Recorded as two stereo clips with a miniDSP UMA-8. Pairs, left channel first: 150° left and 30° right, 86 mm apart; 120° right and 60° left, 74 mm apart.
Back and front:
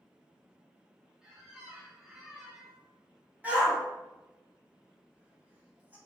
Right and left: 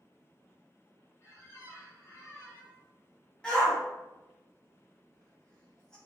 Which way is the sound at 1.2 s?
110° right.